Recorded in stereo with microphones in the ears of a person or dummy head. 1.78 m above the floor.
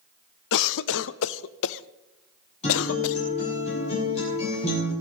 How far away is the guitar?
About 9 m.